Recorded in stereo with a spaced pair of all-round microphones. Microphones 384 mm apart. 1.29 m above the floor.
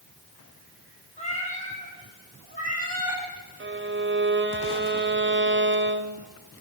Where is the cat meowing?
15° left (ahead or behind), 6 m; by 3.2 s 20° left (ahead or behind), 7 m.